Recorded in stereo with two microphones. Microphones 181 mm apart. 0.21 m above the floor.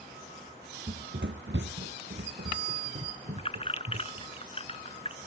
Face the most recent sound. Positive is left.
turn(degrees=35)  # may be behind; listen again after turning